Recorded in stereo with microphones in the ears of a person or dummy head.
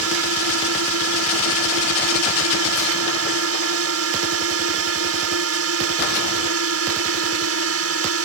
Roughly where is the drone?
Right.